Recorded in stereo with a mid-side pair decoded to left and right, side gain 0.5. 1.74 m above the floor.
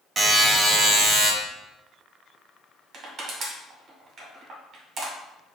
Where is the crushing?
50° right, 1.5 m.